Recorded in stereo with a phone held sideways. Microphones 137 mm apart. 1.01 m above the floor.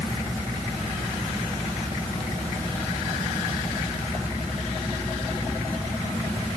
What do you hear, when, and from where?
Only background noise.